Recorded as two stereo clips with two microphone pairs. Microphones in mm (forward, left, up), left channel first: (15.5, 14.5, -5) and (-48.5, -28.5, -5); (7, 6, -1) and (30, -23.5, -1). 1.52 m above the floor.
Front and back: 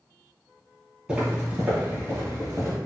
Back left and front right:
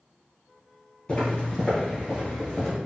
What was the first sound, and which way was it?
Footsteps, 165° left.